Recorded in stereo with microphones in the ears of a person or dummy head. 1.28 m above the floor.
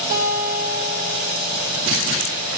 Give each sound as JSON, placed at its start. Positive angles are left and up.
{"t": 0.1, "sound": "a guitar", "side_deg": -15, "distance_m": 5.5}